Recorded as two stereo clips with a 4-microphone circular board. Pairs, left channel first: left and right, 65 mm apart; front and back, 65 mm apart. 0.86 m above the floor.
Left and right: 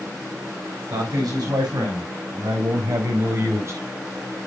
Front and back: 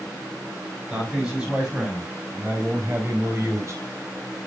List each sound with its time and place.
0.9 s a man speaking: 100° right, 6 m; by 3.8 s 135° right, 4 m